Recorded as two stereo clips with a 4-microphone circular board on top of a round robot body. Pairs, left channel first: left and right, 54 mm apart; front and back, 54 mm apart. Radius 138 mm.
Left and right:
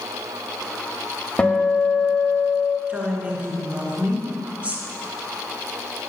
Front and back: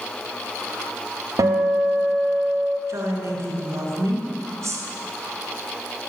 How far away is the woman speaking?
About 2.5 m.